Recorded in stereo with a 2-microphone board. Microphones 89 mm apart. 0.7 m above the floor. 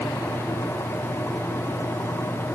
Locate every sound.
Only background noise.